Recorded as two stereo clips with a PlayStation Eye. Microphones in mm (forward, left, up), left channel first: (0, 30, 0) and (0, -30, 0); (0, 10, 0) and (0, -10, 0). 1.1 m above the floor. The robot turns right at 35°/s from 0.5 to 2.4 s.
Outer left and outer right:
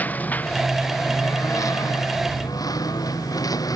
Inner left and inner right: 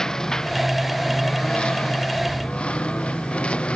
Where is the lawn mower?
25° left; by 3.8 s 95° left.